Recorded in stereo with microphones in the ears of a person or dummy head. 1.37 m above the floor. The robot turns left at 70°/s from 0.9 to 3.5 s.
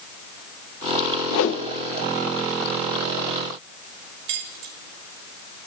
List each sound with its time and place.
1.3 s a whoosh: 85° left, 0.8 m; by 1.6 s 65° left (ahead or behind), 0.8 m
4.3 s keys jangling: 70° right (ahead or behind), 3.5 m